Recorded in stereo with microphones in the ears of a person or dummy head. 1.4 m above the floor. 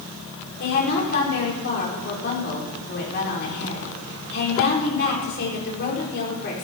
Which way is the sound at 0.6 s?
55° left (ahead or behind).